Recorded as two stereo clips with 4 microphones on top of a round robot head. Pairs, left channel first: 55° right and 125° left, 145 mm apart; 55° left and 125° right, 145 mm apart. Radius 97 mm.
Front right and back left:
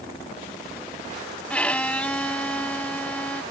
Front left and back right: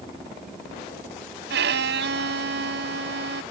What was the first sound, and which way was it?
A violin, 135° right.